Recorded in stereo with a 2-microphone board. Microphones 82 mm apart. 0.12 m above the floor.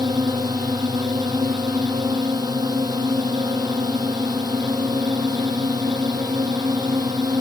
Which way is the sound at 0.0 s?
65° right (ahead or behind).